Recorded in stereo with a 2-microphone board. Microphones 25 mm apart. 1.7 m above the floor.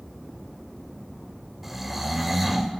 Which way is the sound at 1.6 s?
5° right (ahead or behind).